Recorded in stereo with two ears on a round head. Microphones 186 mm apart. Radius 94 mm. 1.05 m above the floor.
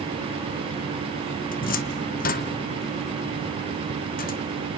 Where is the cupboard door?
40° left (ahead or behind), 1.1 m.